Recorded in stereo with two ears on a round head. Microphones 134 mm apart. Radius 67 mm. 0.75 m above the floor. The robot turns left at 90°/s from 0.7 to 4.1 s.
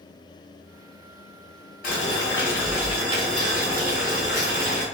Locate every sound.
1.8 s boiling: 80° left, 1.9 m; by 4.8 s 125° right, 1.9 m